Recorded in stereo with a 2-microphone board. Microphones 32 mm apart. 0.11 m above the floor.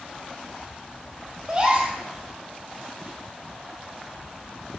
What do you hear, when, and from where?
1.5 s a gasp: 30° right (ahead or behind), 1.6 m